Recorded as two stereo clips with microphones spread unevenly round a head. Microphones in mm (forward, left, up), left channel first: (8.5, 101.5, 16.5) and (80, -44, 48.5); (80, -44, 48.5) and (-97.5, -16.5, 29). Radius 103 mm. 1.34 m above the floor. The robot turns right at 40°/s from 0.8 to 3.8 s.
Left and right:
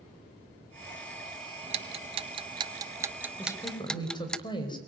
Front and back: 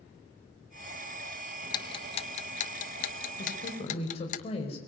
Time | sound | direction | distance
1.6 | ticking | 65° right | 0.6 m
3.4 | a woman speaking | 35° left | 5.5 m